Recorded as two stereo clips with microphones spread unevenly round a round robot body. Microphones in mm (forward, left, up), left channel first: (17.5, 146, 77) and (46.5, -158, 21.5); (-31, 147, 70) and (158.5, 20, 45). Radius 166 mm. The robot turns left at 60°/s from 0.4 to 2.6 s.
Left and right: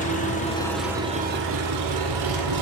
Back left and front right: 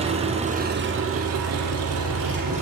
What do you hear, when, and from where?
0.0 s an engine running: 30° left, 5.5 m; by 2.6 s 100° right, 5.5 m